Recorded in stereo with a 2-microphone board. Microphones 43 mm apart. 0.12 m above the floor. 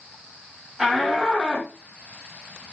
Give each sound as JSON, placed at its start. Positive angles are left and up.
{"t": 0.8, "sound": "a shout", "side_deg": -10, "distance_m": 4.5}